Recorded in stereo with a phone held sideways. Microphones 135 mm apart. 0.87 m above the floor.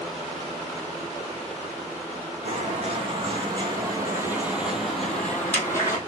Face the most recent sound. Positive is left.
turn(degrees=25)  # may be behind; listen again after turning